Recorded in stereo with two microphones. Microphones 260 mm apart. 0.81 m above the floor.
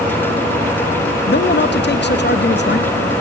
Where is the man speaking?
40° left (ahead or behind), 0.6 m.